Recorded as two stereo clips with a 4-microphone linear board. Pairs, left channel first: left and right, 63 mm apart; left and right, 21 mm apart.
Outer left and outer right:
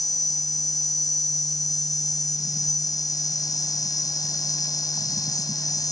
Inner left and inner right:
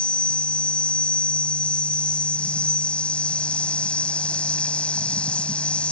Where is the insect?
65° left (ahead or behind).